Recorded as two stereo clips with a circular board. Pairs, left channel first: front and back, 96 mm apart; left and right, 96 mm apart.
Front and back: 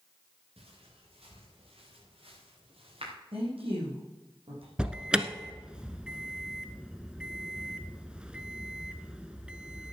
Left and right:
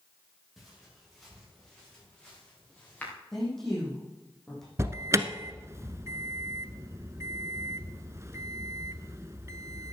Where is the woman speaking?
175° left, 6 m.